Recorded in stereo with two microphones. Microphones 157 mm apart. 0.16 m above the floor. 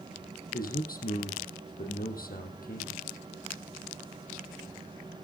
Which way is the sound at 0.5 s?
70° left (ahead or behind).